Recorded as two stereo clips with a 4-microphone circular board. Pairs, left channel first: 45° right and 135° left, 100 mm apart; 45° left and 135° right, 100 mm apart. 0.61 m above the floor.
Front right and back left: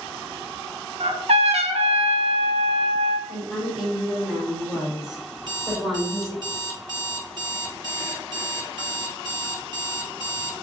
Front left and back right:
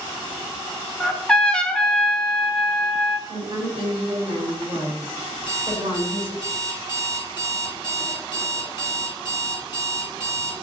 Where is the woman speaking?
140° right, 2 m.